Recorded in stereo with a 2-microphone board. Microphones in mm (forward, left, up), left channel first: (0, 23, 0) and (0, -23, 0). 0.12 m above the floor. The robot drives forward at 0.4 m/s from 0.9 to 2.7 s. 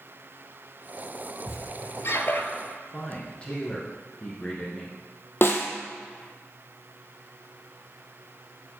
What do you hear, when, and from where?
1.5 s a squeak: 60° left (ahead or behind), 0.6 m; by 2.5 s 55° left (ahead or behind), 0.6 m
2.9 s a man speaking: 25° left (ahead or behind), 1.2 m
5.4 s a snare drum: 50° left (ahead or behind), 0.7 m